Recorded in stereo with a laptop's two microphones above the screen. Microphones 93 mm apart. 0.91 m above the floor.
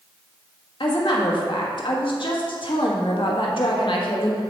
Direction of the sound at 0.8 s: 65° left (ahead or behind).